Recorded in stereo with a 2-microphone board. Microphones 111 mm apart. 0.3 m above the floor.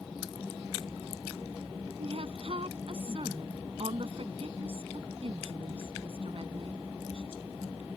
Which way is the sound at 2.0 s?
60° right (ahead or behind).